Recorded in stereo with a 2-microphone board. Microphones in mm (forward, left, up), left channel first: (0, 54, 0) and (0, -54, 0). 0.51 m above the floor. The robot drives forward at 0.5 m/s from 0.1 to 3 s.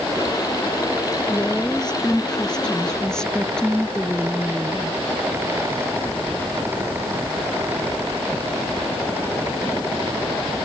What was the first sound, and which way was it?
A woman speaking, 5° left (ahead or behind).